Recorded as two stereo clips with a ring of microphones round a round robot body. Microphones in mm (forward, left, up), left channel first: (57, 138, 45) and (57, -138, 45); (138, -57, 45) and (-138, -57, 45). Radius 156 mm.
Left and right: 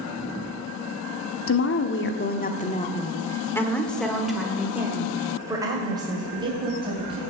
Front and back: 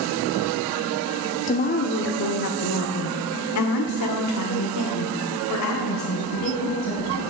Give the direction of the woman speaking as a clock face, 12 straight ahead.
10 o'clock.